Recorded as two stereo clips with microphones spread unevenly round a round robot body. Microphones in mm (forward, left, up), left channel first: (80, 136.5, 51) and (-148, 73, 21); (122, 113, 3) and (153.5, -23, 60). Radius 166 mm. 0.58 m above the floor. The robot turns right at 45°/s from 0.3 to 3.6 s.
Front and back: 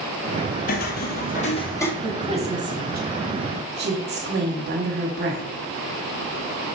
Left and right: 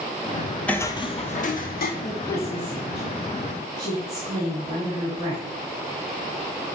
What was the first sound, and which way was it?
Footsteps, straight ahead.